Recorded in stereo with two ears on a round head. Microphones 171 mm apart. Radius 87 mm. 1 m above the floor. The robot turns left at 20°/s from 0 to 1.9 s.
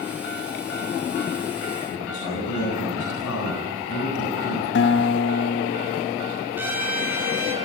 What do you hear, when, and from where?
1.9 s a man speaking: 80° left, 8 m
4.8 s a guitar: 70° left (ahead or behind), 0.8 m
6.6 s a trumpet: 10° right (ahead or behind), 6 m